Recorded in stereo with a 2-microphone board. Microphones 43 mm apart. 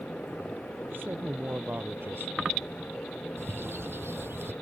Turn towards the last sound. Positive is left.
turn(degrees=-65)  # may be behind; listen again after turning